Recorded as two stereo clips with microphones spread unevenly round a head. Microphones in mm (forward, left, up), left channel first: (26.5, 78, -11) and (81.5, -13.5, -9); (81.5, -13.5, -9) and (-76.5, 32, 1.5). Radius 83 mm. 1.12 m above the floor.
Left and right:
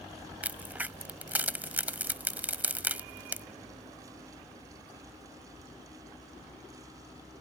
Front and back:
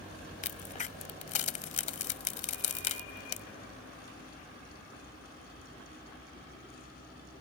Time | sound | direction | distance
0.4 | a crack | 5° left | ?